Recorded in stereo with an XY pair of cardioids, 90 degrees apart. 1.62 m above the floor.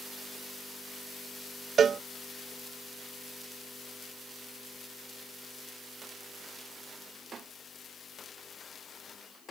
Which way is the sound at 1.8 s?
55° right.